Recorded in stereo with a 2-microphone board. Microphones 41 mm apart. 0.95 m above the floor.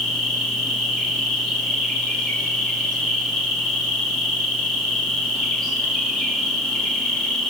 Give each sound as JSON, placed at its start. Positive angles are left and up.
{"t": 0.0, "sound": "an insect", "side_deg": 10, "distance_m": 2.0}